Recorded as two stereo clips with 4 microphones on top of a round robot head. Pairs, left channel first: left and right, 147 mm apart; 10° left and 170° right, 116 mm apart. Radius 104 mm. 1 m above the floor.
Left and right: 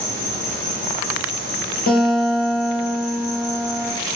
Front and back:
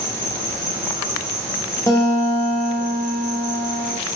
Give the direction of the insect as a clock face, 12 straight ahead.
10 o'clock.